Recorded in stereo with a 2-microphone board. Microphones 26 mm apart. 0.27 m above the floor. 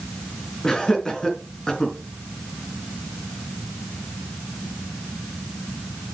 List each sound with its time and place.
0.6 s laughter: 25° left (ahead or behind), 3.5 m